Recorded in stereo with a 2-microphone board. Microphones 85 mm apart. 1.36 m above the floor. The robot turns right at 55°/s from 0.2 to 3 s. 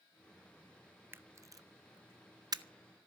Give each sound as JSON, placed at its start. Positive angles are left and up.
{"t": 1.1, "sound": "a camera shutter", "side_deg": -25, "distance_m": 0.7}